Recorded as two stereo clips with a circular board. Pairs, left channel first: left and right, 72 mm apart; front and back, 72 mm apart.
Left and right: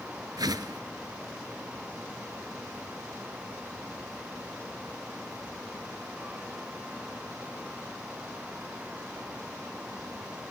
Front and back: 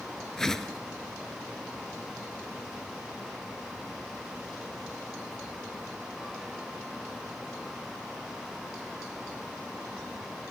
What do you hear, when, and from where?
0.4 s a whoosh: 85° right, 0.9 m